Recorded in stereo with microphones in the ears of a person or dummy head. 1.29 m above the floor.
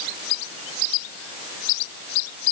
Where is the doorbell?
No doorbell in this recording.